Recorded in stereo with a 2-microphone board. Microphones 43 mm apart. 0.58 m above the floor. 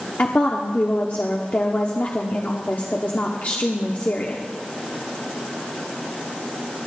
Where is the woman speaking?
45° left (ahead or behind), 1.0 m.